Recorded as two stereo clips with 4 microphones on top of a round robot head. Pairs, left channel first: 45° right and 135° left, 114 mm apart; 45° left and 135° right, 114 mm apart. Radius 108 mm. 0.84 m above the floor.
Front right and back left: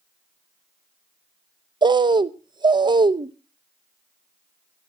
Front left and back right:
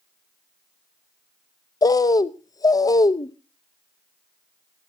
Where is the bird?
95° left, 0.8 m.